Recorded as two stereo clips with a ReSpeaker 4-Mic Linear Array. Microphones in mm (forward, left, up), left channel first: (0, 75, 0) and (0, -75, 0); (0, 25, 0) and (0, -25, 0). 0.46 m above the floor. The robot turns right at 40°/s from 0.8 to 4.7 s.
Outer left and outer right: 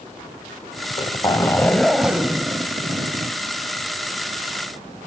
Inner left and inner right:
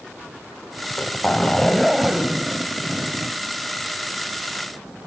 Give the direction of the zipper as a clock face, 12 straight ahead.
8 o'clock.